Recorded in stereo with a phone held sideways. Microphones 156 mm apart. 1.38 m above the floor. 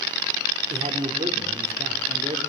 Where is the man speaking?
45° right (ahead or behind), 4 m.